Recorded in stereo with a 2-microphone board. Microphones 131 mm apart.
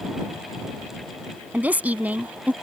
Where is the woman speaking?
10° right (ahead or behind).